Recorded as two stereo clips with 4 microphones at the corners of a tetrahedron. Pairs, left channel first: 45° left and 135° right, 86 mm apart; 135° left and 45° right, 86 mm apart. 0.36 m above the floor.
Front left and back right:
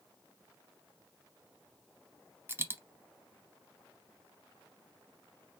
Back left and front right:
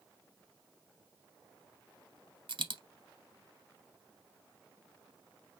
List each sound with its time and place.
2.5 s a dropped coin: 70° right, 0.7 m